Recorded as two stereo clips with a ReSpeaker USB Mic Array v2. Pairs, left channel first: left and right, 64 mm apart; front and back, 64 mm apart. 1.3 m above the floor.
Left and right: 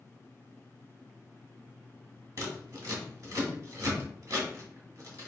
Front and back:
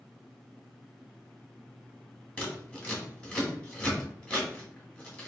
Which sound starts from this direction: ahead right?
Scissors, at 2.4 s.